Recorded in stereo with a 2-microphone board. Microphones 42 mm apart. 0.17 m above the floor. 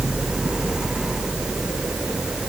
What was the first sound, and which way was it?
Only background noise.